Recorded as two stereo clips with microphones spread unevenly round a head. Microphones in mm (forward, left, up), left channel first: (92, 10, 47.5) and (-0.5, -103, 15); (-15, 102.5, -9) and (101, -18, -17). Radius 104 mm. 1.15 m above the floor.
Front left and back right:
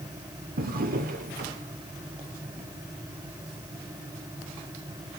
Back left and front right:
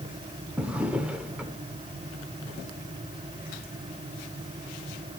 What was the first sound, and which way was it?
A drawer, 130° right.